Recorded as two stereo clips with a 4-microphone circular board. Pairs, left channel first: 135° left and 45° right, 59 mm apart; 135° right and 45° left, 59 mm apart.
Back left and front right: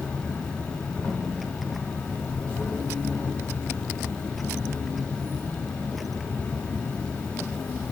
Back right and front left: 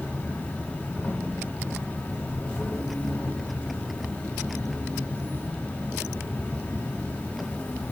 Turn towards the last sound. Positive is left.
turn(degrees=-170)